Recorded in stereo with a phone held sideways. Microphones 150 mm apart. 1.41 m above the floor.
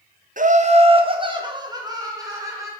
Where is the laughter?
60° right (ahead or behind), 0.6 m; by 2.7 s 20° right (ahead or behind), 2.0 m.